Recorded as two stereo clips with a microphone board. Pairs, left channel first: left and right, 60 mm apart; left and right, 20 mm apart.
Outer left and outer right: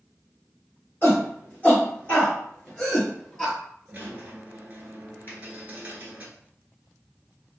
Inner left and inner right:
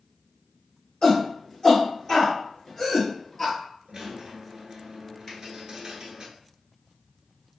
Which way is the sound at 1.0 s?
35° left (ahead or behind).